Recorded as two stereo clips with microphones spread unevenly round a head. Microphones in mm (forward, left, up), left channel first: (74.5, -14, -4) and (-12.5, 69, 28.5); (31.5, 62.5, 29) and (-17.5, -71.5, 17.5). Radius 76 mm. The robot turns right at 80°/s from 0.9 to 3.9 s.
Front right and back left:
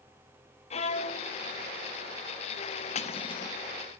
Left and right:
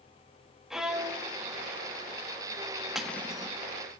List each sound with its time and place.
0.7 s a violin: 20° right, 1.7 m; by 1.3 s 15° left, 1.7 m
3.0 s cutlery clinking: 20° right, 1.2 m; by 3.6 s 30° left, 1.2 m